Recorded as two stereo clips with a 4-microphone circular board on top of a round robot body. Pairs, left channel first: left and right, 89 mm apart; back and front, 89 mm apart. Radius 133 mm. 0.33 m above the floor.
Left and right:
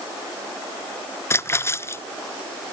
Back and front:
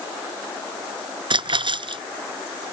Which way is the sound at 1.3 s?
30° left.